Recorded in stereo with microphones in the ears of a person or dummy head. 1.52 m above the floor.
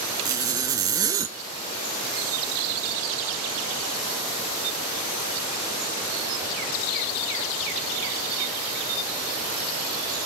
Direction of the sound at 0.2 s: 15° right (ahead or behind).